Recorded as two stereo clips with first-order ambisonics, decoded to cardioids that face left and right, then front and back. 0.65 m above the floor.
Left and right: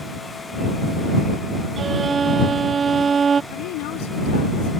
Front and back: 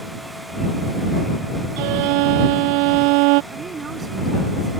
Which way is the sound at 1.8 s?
160° right.